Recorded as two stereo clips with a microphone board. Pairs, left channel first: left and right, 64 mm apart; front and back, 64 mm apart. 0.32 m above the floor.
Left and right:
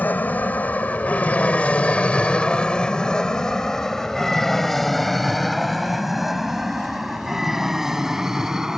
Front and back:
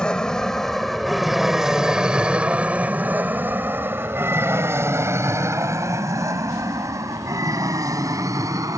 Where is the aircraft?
65° left; by 8.8 s 170° right.